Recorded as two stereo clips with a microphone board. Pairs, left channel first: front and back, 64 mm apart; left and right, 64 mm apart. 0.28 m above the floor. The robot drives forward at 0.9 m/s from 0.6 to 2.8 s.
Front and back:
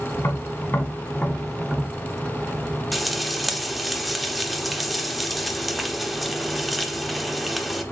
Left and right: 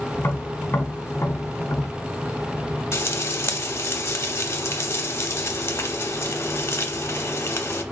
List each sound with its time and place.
0.2 s tapping: 35° left, 1.1 m; by 1.9 s 120° left, 0.9 m
2.9 s frying: 90° left, 0.6 m